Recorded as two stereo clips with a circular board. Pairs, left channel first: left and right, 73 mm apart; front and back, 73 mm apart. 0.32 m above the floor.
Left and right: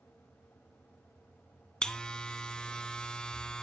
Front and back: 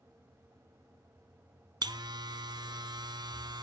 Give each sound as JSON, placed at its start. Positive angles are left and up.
{"t": 1.8, "sound": "a buzzer", "azimuth_deg": 170, "distance_m": 0.9}